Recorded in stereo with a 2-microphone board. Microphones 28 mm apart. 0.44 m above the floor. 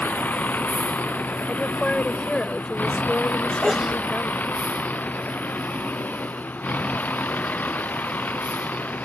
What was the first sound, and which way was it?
A vehicle, 85° left.